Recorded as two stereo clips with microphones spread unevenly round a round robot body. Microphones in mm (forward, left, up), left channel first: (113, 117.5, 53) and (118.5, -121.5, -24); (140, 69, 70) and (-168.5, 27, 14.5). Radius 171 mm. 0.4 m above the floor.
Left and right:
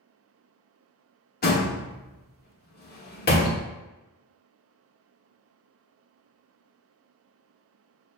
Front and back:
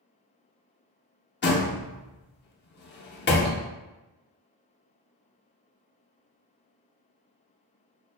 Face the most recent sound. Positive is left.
turn(degrees=45)